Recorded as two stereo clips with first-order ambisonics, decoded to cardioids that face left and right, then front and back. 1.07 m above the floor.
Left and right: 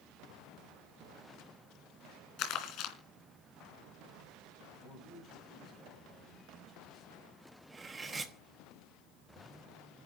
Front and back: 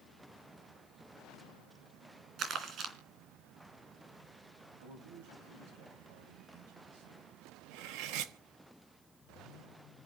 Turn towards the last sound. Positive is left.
turn(degrees=-165)